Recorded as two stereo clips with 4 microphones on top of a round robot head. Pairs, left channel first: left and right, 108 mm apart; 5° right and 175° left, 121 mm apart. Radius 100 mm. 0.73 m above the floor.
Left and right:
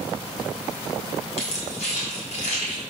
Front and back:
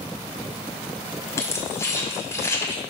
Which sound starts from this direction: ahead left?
Keys jangling, at 1.4 s.